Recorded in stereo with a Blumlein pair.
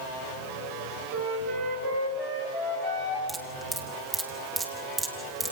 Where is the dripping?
15° right, 2.5 m.